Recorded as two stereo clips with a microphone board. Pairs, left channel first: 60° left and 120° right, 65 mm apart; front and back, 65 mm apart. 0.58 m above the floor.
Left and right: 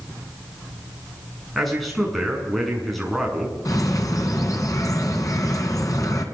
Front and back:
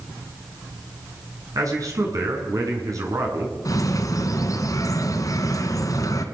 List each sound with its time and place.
1.6 s a man speaking: 150° left, 7.5 m
3.6 s a bird: 30° left, 3 m